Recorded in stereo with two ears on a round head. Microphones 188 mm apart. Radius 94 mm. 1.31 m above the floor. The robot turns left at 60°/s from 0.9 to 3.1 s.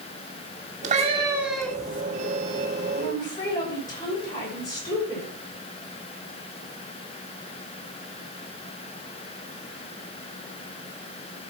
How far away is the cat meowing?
About 2 m.